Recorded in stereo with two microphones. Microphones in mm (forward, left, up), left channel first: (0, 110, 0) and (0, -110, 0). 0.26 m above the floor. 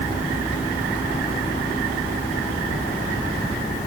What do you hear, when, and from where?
Only background noise.